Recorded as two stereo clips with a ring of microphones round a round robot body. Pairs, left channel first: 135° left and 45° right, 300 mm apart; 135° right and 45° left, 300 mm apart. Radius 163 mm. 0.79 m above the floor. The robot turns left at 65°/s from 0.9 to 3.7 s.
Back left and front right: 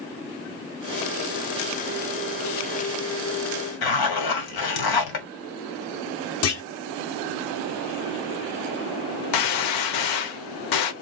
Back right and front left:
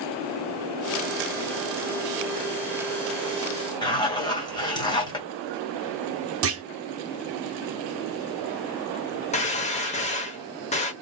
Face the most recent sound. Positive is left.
turn(degrees=155)